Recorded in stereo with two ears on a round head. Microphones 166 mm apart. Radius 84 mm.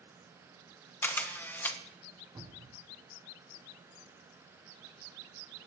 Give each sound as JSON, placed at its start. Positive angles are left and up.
{"t": 1.0, "sound": "a camera shutter", "side_deg": 10, "distance_m": 1.3}
{"t": 2.4, "sound": "a cupboard door", "side_deg": -20, "distance_m": 3.5}